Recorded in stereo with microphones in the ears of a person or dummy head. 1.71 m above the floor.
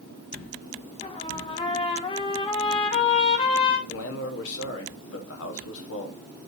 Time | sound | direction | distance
1.0 | a trumpet | 30° left (ahead or behind) | 1.1 m
3.9 | a man speaking | 75° left (ahead or behind) | 1.6 m